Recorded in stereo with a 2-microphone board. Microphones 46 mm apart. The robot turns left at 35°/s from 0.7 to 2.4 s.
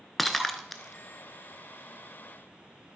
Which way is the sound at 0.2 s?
5° left (ahead or behind).